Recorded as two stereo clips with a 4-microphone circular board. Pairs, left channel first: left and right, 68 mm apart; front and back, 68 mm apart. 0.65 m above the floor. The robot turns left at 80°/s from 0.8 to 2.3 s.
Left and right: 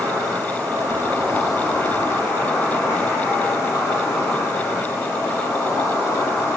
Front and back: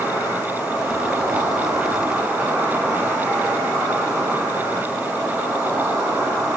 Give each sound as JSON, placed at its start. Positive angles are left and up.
{"t": 0.0, "sound": "an insect", "azimuth_deg": -125, "distance_m": 4.0}